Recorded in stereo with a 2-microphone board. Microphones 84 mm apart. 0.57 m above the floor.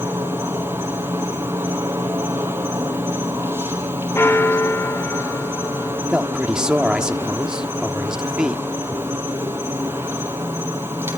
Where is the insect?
30° right (ahead or behind), 2 m.